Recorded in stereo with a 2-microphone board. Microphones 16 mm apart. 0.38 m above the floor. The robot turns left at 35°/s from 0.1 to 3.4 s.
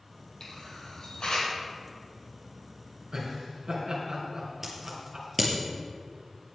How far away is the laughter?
About 4.5 m.